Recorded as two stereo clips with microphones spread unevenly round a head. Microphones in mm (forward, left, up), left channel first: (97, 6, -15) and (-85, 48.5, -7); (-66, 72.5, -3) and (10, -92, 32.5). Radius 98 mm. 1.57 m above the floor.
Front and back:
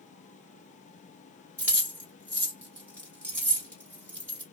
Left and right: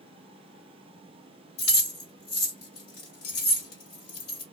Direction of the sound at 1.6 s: 90° left.